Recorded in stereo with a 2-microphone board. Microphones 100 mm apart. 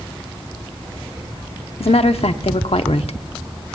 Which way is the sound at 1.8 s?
75° left (ahead or behind).